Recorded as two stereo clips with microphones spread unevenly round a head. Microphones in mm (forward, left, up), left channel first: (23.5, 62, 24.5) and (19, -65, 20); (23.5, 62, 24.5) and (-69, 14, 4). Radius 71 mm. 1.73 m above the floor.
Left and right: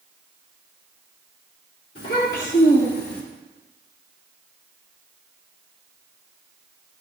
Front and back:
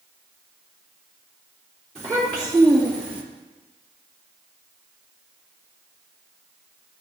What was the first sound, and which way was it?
A child speaking, 110° left.